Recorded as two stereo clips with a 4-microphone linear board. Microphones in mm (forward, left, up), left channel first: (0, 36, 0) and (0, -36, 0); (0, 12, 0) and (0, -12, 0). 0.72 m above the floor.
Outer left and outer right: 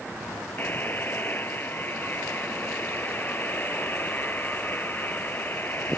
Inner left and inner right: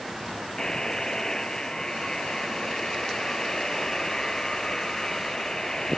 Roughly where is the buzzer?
Left.